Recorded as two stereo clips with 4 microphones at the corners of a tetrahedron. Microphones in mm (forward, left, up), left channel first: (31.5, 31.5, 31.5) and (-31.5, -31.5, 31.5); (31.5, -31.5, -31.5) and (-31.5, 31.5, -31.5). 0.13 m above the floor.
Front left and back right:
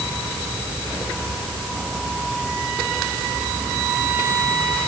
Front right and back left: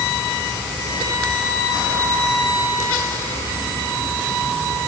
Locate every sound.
Only background noise.